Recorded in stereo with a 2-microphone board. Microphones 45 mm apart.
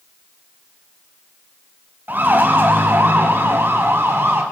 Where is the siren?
40° right (ahead or behind), 4 m; by 4.4 s 55° right (ahead or behind), 5.5 m.